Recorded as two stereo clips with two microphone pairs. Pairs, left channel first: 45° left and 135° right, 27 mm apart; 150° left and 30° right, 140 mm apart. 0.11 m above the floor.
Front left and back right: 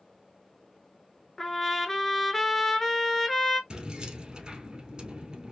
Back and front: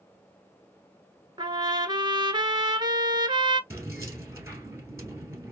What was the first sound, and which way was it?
A trumpet, 25° right.